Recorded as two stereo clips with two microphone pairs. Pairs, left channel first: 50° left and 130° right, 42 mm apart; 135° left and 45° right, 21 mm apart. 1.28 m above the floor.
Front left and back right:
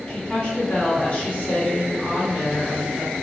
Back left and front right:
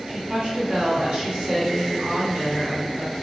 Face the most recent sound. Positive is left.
turn(degrees=-15)